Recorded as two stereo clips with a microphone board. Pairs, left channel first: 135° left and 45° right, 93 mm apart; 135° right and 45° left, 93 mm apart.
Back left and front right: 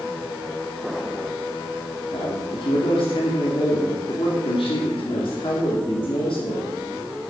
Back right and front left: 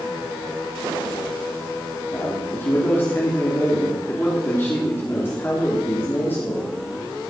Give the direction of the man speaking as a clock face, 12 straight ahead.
7 o'clock.